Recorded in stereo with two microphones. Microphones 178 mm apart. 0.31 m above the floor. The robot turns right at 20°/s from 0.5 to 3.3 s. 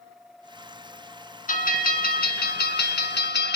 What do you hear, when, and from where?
1.5 s a bell: 50° left, 2.0 m; by 3.6 s 85° left, 2.0 m